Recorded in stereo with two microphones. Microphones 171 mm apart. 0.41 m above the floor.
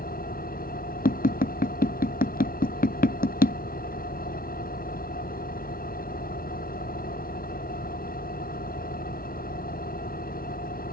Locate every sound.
0.0 s an engine running: 55° left (ahead or behind)
1.1 s tapping: 55° left (ahead or behind)